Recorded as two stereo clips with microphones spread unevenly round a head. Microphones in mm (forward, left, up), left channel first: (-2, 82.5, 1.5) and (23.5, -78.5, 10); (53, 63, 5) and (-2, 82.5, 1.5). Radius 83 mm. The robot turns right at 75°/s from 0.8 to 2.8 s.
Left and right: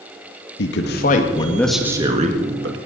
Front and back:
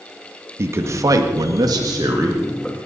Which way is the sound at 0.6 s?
120° left.